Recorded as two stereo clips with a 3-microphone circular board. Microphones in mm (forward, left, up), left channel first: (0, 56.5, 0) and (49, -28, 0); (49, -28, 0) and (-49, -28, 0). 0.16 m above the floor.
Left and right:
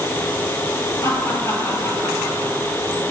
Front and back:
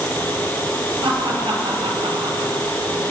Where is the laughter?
175° left, 2.5 m; by 2.8 s 175° right, 3.5 m.